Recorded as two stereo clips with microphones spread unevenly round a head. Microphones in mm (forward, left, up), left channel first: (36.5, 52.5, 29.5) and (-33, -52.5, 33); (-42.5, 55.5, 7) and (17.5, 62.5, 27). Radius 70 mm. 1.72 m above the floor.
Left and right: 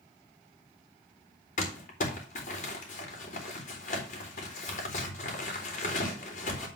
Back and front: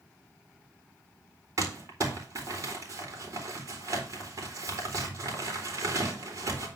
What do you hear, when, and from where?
1.6 s crumpling: 30° left, 3 m